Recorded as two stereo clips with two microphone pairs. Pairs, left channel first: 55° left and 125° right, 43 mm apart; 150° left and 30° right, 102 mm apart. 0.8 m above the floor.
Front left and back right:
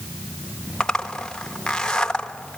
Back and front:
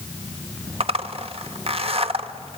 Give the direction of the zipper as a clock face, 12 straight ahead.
1 o'clock.